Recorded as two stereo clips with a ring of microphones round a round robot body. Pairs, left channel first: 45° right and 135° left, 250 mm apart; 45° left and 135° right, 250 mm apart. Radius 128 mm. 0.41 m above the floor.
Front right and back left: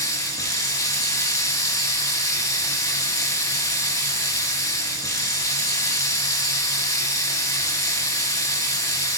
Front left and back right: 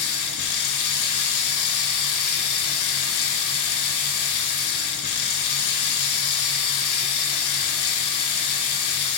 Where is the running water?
30° left, 3 m.